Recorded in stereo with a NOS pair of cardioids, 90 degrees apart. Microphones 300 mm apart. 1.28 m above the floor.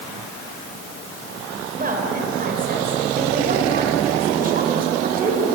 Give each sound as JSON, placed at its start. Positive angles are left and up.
{"t": 1.8, "sound": "a woman speaking", "azimuth_deg": -30, "distance_m": 5.0}